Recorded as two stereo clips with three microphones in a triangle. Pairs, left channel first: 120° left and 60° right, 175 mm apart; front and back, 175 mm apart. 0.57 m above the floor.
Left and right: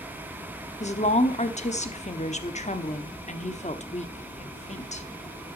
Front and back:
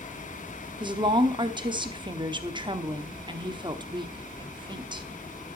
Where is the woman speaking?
135° left, 1.0 m.